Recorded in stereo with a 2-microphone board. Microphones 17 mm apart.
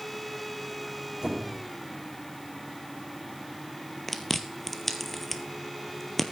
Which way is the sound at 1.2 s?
45° right (ahead or behind).